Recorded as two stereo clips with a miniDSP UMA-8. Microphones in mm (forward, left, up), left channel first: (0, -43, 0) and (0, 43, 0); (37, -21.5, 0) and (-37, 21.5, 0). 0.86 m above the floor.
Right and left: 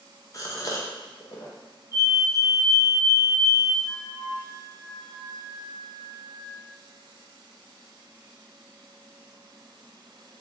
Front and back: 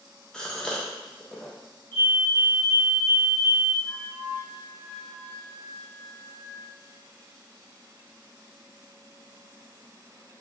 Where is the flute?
105° right, 1.5 m.